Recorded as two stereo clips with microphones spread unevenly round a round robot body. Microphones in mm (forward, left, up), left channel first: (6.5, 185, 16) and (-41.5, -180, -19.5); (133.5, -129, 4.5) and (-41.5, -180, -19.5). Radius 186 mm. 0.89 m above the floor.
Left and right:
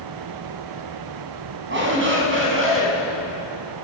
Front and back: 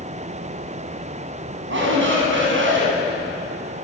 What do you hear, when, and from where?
1.7 s a shout: 160° right, 7.5 m; by 2.9 s 155° right, 8 m